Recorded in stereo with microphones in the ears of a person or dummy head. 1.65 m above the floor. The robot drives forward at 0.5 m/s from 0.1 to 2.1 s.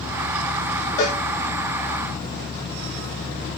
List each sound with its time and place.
1.0 s a cowbell: 20° left (ahead or behind), 1.5 m